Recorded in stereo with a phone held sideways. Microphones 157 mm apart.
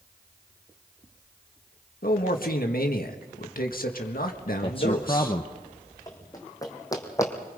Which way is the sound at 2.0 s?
70° left (ahead or behind).